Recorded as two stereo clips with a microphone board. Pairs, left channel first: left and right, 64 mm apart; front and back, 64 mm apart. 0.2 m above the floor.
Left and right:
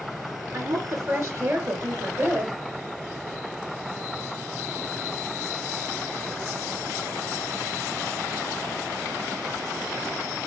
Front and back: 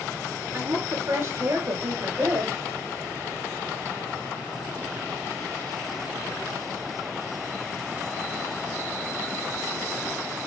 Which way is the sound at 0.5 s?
130° right.